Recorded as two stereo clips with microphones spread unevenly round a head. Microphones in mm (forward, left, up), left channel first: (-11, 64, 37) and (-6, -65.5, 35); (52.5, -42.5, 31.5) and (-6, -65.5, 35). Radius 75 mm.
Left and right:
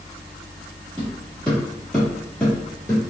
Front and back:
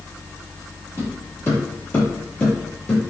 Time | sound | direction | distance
1.0 | footsteps | 20° left | 1.7 m